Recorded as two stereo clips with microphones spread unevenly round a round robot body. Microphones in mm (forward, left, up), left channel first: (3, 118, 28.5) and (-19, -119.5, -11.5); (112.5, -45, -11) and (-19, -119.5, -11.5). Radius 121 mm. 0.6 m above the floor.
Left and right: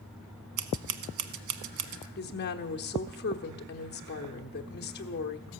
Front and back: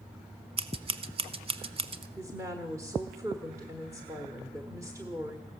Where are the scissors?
100° right, 1.0 m.